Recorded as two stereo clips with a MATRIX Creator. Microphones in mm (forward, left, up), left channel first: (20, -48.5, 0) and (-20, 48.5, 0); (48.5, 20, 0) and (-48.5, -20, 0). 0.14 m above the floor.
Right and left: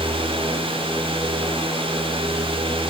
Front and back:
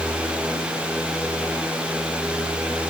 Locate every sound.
Only background noise.